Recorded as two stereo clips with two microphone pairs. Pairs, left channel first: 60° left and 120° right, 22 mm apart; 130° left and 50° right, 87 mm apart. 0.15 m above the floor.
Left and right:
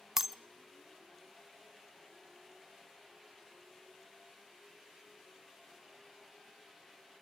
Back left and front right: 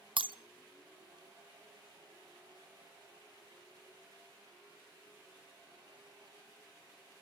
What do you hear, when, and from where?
0.2 s breaking glass: 50° right, 0.7 m